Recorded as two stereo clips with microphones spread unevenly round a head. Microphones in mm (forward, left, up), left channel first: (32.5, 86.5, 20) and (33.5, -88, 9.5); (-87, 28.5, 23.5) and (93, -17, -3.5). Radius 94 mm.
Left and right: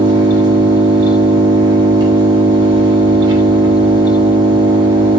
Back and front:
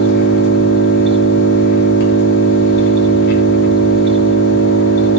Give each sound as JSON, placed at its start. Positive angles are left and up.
{"t": 0.0, "sound": "an engine running", "azimuth_deg": -160, "distance_m": 2.5}